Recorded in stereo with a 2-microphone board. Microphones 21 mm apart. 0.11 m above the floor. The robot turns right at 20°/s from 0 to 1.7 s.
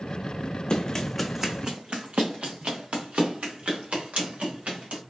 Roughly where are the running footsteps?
Left.